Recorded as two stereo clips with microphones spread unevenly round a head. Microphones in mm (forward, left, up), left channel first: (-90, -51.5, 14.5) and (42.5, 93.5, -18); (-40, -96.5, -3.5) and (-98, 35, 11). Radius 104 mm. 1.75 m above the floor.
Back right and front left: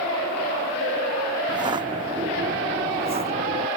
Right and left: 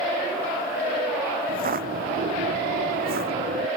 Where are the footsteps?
120° left; by 3.7 s 105° left.